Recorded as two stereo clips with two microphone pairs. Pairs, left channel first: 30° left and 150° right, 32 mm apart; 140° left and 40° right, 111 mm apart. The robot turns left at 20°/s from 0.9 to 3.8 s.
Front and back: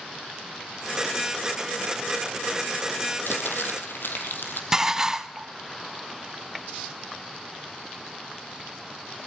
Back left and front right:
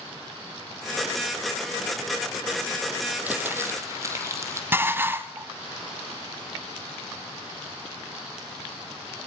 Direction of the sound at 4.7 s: 90° right.